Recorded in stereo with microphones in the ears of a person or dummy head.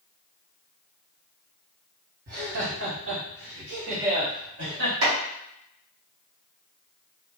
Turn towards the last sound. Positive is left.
turn(degrees=-60)  # may be behind; listen again after turning